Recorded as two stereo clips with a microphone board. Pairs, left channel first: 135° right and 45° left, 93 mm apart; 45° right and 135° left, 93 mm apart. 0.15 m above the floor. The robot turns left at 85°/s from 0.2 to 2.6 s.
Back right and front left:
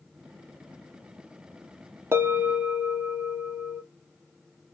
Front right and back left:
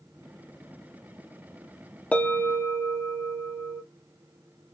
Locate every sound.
2.1 s a bell: 15° left, 0.6 m; by 3.8 s 25° right, 0.6 m